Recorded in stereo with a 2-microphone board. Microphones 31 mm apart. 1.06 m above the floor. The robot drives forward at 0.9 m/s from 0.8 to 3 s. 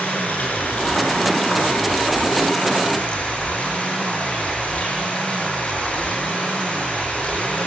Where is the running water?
65° left (ahead or behind), 6 m; by 7.7 s 50° left (ahead or behind), 7 m.